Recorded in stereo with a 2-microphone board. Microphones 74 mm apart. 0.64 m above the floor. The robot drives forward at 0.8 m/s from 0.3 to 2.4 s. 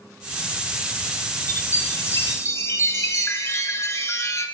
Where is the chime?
40° left (ahead or behind), 5.5 m; by 4.5 s 45° left (ahead or behind), 4.5 m.